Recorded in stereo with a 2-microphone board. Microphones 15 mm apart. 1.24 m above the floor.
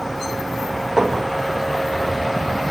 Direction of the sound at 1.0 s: 30° right (ahead or behind).